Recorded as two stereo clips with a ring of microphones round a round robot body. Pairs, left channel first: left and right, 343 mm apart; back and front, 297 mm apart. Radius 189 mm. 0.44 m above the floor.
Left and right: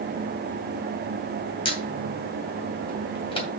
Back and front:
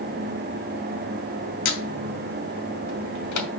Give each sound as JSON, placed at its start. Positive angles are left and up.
{"t": 1.6, "sound": "a squeak", "azimuth_deg": 165, "distance_m": 2.5}